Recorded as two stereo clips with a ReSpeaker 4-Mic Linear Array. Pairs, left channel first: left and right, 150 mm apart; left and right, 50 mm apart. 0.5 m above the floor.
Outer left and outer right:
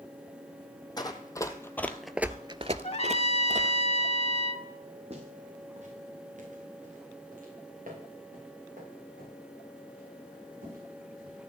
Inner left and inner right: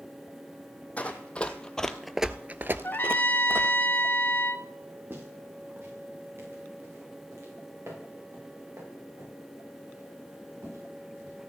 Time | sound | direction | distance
1.0 | running footsteps | 30° left (ahead or behind) | 1.5 m
2.8 | a trumpet | 45° left (ahead or behind) | 0.6 m
5.1 | footsteps | 45° right (ahead or behind) | 4.5 m